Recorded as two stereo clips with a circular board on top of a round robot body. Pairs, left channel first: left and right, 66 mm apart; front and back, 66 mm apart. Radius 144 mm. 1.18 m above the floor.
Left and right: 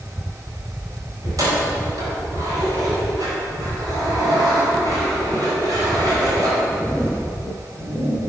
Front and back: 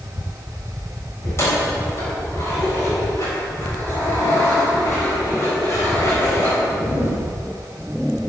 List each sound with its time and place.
1.2 s keys jangling: 55° right, 4 m